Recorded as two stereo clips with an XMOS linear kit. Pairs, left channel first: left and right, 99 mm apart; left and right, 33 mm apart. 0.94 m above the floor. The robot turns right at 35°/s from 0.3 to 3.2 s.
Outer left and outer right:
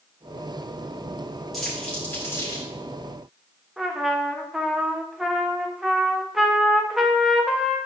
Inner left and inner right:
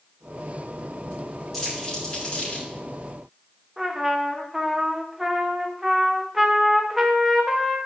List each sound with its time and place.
1.5 s crumpling: centre (ahead or behind), 5.5 m; by 2.6 s 40° left (ahead or behind), 5.5 m
3.8 s a trumpet: 5° right (ahead or behind), 1.2 m